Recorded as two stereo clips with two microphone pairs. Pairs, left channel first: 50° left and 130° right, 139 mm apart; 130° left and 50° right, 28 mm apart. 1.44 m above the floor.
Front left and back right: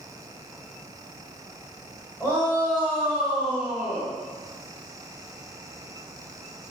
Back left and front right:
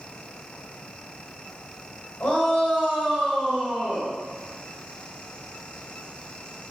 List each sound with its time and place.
2.2 s a shout: 130° left, 1.5 m; by 4.1 s 100° left, 2.5 m